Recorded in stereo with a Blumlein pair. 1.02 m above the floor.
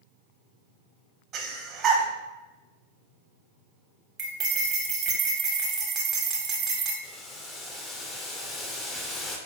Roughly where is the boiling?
Ahead.